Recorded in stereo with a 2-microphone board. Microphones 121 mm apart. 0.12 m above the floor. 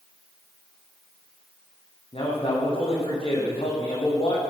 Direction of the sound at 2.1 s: 50° left (ahead or behind).